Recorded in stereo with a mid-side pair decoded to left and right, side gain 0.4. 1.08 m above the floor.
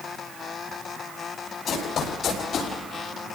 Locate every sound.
1.7 s running footsteps: 65° left, 9 m; by 2.7 s 70° left, 9.5 m